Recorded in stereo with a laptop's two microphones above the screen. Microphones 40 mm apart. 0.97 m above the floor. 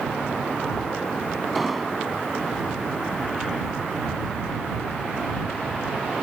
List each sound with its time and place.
1.6 s an explosion: 5° right (ahead or behind)